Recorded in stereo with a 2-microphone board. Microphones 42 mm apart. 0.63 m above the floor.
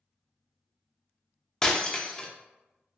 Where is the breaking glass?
15° left (ahead or behind), 0.5 m.